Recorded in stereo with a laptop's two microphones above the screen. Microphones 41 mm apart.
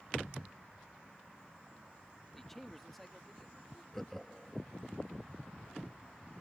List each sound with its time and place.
2.4 s a man speaking: 10° left (ahead or behind); by 3.8 s centre (ahead or behind)
3.9 s laughter: 5° left (ahead or behind)